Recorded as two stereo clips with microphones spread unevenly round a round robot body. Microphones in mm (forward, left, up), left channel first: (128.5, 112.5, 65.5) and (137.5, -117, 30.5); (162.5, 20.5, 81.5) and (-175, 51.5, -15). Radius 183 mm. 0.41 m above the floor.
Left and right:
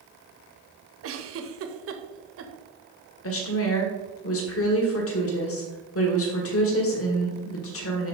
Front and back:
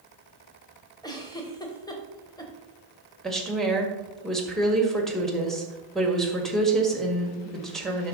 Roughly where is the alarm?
No alarm in this recording.